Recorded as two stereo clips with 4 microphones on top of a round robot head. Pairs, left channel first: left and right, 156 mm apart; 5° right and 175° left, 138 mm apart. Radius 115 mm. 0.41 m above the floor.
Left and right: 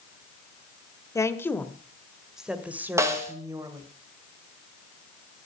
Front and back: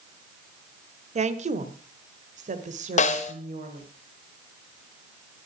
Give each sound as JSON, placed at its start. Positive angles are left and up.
{"t": 1.1, "sound": "a woman speaking", "azimuth_deg": 160, "distance_m": 1.5}
{"t": 3.0, "sound": "a snare drum", "azimuth_deg": -20, "distance_m": 1.8}